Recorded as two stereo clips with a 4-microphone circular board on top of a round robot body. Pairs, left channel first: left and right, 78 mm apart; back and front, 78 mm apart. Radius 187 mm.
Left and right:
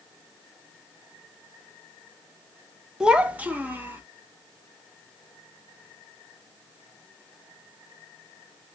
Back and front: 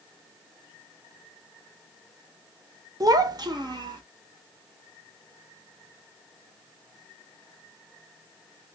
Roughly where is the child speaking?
Ahead.